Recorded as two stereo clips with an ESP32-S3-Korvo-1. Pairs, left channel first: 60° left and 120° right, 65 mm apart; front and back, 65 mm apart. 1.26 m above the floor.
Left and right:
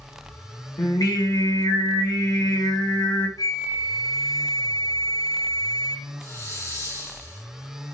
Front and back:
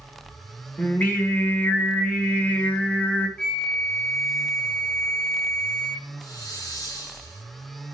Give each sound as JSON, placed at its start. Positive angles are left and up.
{"t": 0.8, "sound": "singing", "azimuth_deg": 65, "distance_m": 2.0}
{"t": 3.4, "sound": "a flute", "azimuth_deg": 80, "distance_m": 0.9}
{"t": 6.2, "sound": "a hiss", "azimuth_deg": 10, "distance_m": 3.5}